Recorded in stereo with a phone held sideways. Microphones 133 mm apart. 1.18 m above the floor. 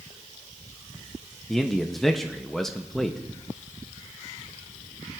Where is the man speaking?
5° left (ahead or behind), 0.6 m.